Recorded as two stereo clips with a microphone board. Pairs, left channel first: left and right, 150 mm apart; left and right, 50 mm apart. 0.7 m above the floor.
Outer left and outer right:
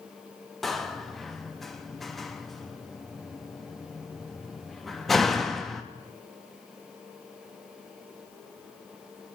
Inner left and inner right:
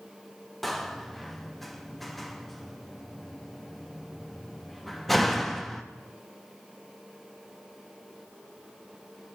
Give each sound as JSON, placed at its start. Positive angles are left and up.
{"t": 0.6, "sound": "a door slam", "side_deg": 0, "distance_m": 0.5}